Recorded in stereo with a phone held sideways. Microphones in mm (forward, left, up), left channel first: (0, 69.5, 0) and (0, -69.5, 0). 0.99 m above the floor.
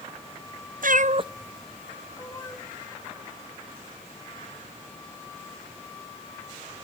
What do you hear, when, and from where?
0.8 s a cat meowing: 75° right (ahead or behind), 0.6 m; by 2.6 s 25° left (ahead or behind), 1.6 m